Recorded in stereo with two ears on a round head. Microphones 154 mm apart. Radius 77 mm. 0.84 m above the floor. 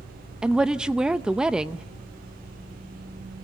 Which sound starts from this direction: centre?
A woman speaking, at 0.4 s.